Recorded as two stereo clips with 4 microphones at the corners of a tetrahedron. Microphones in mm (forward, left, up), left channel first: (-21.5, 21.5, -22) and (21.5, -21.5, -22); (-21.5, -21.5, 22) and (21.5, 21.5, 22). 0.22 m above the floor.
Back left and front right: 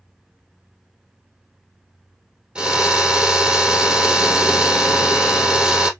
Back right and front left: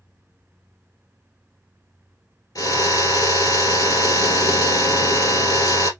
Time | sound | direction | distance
2.5 | a drill | 120° right | 2.5 m